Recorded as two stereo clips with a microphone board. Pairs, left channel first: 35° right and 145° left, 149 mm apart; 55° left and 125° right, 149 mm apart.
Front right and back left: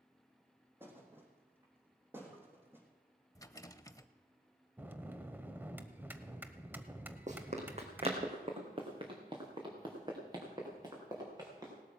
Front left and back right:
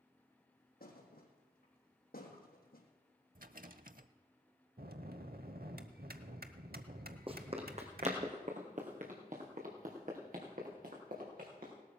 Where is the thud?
70° left, 3 m.